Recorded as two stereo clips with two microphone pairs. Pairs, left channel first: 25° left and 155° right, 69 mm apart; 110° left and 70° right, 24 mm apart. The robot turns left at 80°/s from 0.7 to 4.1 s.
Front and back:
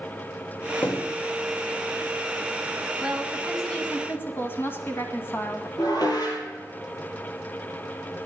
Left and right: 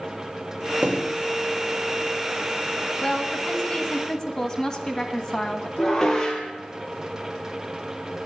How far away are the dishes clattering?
About 3 m.